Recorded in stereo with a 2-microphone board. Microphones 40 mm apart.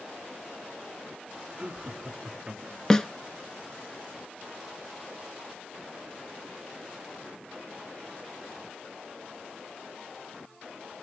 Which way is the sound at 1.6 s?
25° right (ahead or behind).